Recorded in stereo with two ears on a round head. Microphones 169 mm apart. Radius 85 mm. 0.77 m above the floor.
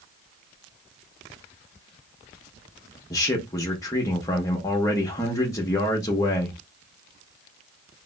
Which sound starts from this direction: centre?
A man speaking, at 3.1 s.